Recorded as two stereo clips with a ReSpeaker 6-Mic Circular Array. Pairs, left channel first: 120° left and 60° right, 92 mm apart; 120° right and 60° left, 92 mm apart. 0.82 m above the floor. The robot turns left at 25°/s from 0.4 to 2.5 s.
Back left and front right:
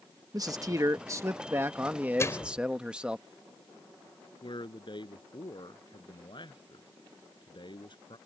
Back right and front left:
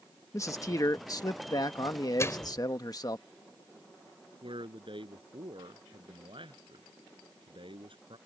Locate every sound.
0.3 s a man speaking: 85° right; by 3.2 s 135° right
2.2 s a microwave: straight behind; by 2.7 s 175° left
4.4 s a man speaking: 85° left